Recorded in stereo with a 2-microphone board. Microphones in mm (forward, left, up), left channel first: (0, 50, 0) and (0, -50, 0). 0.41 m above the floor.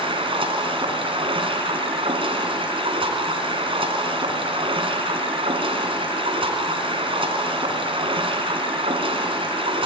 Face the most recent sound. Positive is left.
turn(degrees=-65)  # may be behind; listen again after turning